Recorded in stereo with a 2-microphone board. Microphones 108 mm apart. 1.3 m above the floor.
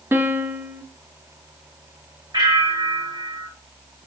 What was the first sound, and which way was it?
A piano, 20° right (ahead or behind).